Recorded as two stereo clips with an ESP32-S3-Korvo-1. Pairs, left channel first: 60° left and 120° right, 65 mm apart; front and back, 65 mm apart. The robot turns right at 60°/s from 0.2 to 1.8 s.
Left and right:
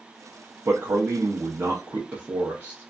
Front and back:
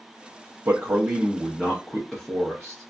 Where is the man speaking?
145° right, 0.7 m; by 2.9 s 75° right, 0.7 m.